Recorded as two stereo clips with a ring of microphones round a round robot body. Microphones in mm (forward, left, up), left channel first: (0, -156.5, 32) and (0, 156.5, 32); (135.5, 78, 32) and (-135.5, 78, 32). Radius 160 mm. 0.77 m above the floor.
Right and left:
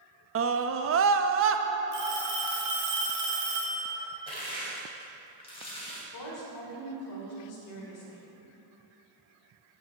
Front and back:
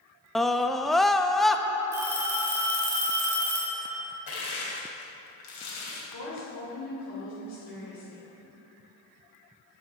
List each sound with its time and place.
0.3 s a scream: 90° left, 0.9 m
1.9 s a phone ringing: 95° left, 3.5 m
4.3 s crushing: 15° right, 3 m
6.1 s a woman speaking: 55° right, 2.5 m